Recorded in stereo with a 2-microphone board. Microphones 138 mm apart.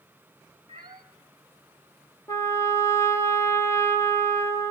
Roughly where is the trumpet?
Centre.